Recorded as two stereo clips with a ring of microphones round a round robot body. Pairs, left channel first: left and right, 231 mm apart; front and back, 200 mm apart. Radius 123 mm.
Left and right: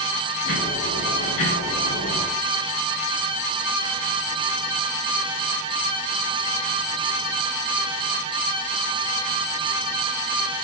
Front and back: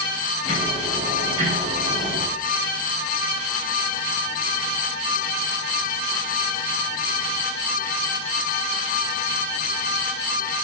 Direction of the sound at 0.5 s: 125° left.